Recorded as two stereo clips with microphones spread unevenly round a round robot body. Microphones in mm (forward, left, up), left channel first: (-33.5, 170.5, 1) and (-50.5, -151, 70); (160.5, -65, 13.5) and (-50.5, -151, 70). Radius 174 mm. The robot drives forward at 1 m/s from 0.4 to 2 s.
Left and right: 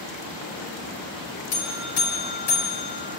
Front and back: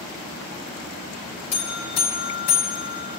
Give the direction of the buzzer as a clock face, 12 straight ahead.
11 o'clock.